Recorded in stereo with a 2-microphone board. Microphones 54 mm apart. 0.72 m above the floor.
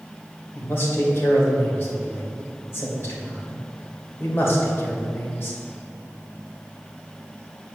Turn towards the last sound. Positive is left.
turn(degrees=45)  # may be behind; listen again after turning